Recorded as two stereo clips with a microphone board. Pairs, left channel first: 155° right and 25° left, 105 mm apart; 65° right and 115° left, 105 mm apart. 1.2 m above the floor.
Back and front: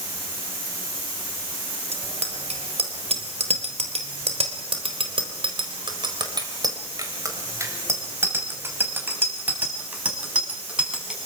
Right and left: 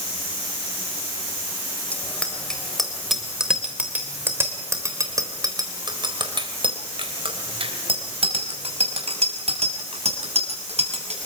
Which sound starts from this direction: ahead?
A bicycle bell, at 1.9 s.